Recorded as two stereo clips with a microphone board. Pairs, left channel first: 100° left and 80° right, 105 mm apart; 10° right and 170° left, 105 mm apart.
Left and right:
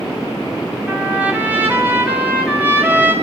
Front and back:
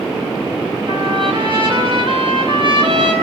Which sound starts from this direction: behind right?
A trumpet, at 0.9 s.